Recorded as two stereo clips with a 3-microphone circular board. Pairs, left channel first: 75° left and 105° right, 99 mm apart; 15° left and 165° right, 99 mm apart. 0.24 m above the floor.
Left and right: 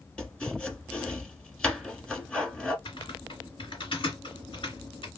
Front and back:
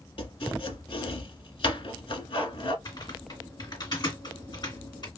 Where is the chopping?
10° right, 1.2 m.